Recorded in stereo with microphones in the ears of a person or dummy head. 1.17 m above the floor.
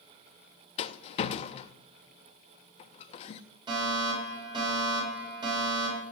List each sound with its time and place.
0.8 s a rattle: 40° left (ahead or behind), 0.6 m
3.7 s a fire alarm: 25° right (ahead or behind), 8 m